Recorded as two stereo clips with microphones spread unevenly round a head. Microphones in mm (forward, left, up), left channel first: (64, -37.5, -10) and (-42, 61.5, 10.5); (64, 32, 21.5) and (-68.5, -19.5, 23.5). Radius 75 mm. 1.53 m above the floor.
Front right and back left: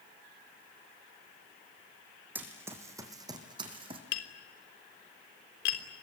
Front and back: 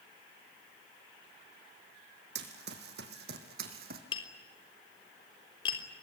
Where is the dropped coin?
No dropped coin in this recording.